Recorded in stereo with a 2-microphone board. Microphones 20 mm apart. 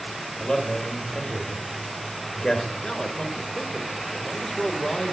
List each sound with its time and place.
0.4 s a man speaking: 35° left (ahead or behind), 1.2 m
2.7 s a man speaking: 25° left (ahead or behind), 0.9 m